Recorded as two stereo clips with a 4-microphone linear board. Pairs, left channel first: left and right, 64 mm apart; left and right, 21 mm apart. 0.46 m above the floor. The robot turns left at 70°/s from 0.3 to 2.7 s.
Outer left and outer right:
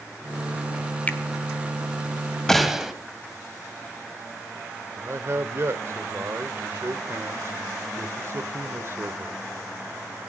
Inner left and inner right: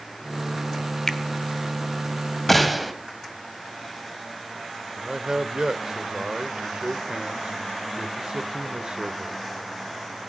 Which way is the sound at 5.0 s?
45° right (ahead or behind).